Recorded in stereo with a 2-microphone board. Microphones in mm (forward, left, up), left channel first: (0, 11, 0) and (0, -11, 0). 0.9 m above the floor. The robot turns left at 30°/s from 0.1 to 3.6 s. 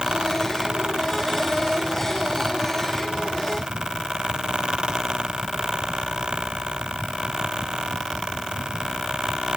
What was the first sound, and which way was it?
Only background noise.